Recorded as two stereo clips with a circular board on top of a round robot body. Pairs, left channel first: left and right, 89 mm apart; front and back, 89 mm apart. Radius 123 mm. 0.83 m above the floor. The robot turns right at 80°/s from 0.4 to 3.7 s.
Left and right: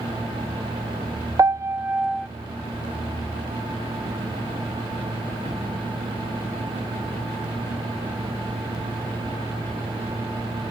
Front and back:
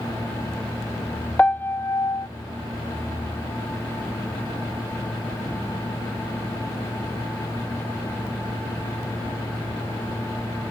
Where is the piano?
70° right; by 2.3 s straight ahead.